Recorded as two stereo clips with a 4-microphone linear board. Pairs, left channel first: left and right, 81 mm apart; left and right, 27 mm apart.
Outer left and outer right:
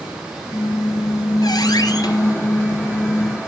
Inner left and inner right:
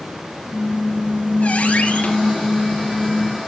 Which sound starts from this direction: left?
A squeak, at 0.5 s.